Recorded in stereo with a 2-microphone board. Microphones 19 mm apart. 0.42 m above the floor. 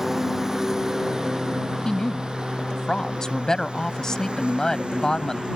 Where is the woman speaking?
40° left (ahead or behind).